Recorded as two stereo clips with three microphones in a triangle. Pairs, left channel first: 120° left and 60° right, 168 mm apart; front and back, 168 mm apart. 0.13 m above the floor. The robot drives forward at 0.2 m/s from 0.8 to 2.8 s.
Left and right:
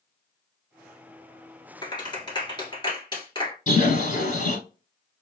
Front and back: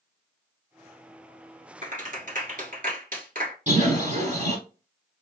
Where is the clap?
175° left, 1.5 m.